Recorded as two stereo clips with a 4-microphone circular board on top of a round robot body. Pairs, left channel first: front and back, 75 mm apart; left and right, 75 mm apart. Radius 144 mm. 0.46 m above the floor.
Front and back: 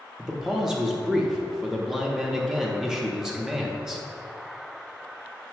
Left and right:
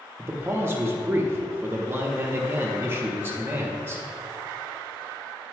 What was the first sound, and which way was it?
A man speaking, 105° right.